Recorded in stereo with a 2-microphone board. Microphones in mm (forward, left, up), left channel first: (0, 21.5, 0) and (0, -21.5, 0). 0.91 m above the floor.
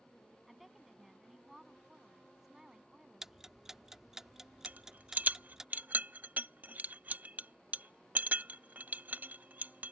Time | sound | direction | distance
0.5 | a woman speaking | centre (ahead or behind) | ?
3.2 | ticking | 10° right (ahead or behind) | ?
4.7 | a rattle | 45° right (ahead or behind) | ?